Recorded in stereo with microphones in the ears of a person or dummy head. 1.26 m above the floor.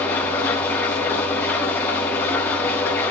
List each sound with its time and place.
0.0 s an engine running: 15° left (ahead or behind), 5 m